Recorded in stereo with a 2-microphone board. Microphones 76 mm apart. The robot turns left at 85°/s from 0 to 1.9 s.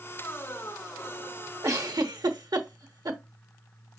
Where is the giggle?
50° right (ahead or behind), 0.9 m; by 3.2 s 70° right (ahead or behind), 0.9 m.